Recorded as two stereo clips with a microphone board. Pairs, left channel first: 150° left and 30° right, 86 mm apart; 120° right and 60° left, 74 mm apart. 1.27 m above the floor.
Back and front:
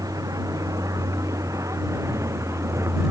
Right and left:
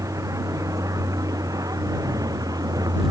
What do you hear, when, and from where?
0.0 s a vehicle: 15° left; by 3.1 s 25° left